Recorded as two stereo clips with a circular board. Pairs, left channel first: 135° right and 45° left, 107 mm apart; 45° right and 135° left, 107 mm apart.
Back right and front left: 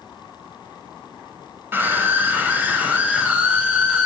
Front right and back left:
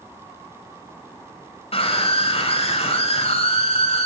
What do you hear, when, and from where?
1.7 s a scream: 25° right, 8 m; by 4.1 s 35° right, 8.5 m